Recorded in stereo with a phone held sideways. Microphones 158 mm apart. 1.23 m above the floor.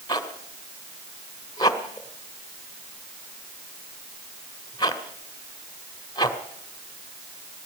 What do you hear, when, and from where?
0.1 s a zipper: 25° left (ahead or behind), 1.8 m